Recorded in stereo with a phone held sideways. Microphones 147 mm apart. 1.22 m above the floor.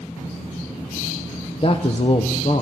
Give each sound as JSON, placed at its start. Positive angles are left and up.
{"t": 1.6, "sound": "a man speaking", "side_deg": 40, "distance_m": 0.6}